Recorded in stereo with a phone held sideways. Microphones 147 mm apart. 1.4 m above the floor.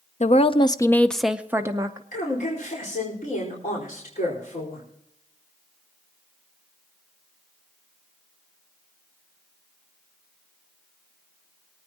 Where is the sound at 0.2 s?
50° left (ahead or behind), 0.7 m; by 2.0 s 25° right (ahead or behind), 0.9 m.